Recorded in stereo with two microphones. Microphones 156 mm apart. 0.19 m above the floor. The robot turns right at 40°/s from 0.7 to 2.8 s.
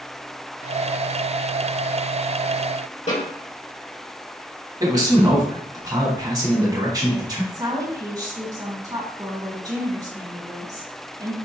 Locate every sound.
3.1 s a snare drum: 50° left (ahead or behind), 2 m
4.8 s a man speaking: 25° right (ahead or behind), 1.1 m
7.5 s a woman speaking: 25° right (ahead or behind), 1.4 m